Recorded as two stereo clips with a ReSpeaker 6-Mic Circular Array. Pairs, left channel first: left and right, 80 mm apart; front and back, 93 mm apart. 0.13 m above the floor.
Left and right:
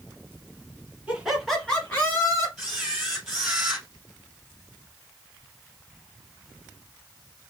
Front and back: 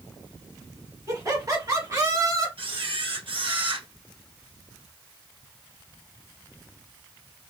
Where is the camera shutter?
175° right, 2.5 m.